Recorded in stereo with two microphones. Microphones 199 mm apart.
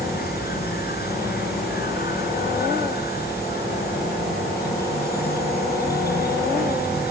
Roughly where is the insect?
Left.